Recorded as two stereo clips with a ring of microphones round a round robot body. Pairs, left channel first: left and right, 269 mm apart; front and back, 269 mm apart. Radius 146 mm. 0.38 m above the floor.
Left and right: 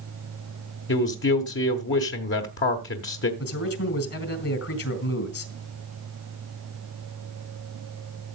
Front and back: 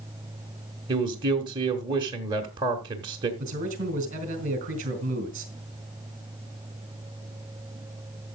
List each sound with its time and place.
0.9 s a man speaking: 110° left, 1.3 m
3.4 s a man speaking: 120° left, 2.5 m